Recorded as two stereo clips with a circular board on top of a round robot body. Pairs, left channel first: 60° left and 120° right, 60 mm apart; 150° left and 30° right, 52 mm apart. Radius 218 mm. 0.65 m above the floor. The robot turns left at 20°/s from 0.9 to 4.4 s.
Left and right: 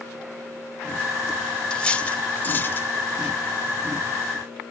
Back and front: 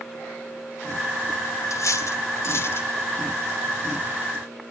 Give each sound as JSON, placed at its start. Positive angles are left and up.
{"t": 1.7, "sound": "cutlery clinking", "azimuth_deg": 135, "distance_m": 1.9}